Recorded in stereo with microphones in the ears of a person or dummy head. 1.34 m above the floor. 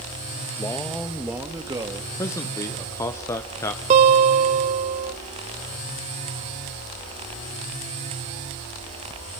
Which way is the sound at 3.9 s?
35° right (ahead or behind).